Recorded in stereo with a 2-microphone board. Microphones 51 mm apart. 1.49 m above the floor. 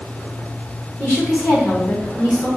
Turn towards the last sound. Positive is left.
turn(degrees=35)  # may be behind; listen again after turning